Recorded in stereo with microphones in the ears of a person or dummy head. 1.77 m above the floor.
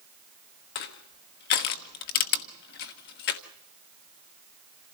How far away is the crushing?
About 1.2 m.